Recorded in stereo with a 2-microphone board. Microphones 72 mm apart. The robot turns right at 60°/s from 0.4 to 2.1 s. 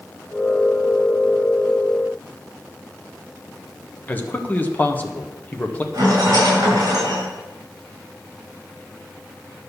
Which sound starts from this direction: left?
A man speaking, at 4.1 s.